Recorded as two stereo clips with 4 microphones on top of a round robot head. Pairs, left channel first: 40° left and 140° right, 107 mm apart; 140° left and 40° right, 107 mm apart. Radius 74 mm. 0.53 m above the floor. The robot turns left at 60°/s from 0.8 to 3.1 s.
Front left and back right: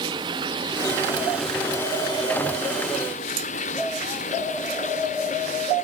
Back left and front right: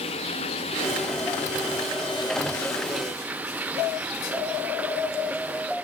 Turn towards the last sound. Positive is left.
turn(degrees=35)